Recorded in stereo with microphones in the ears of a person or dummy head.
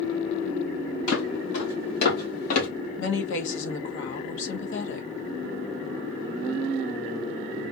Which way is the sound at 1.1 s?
70° left (ahead or behind).